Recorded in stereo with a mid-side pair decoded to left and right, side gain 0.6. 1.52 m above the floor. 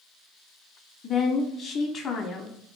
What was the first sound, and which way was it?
A woman speaking, 50° left.